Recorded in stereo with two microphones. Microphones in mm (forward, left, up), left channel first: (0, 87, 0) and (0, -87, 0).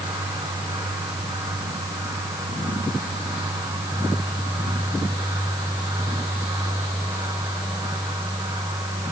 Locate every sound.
Only background noise.